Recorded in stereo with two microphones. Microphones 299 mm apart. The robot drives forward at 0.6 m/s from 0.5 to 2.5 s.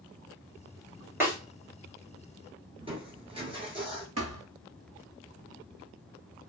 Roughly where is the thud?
Right.